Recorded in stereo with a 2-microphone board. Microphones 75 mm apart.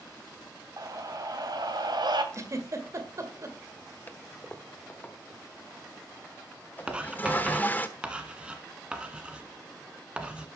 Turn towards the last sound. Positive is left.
turn(degrees=-15)  # may be behind; listen again after turning